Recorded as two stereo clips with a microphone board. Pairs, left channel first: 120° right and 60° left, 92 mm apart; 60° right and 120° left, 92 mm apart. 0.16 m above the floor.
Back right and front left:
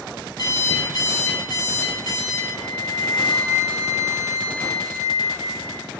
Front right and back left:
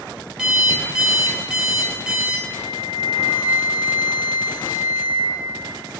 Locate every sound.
0.4 s an alarm clock: 160° right, 1.8 m
2.5 s a flute: 60° right, 0.5 m